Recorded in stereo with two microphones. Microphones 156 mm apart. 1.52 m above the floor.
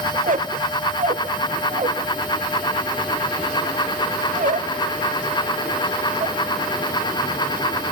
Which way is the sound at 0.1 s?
55° right (ahead or behind).